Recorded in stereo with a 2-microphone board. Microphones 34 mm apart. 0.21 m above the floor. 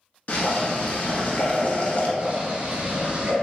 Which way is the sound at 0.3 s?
45° left (ahead or behind).